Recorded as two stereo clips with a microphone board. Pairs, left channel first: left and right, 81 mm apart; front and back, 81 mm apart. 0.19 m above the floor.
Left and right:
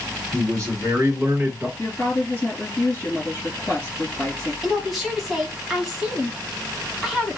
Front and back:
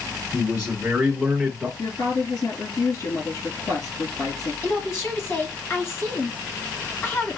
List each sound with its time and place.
0.3 s a man speaking: 110° right, 1.8 m; by 1.7 s 80° right, 1.4 m
1.8 s a woman speaking: 30° left, 3.5 m
4.6 s a woman speaking: 5° right, 1.6 m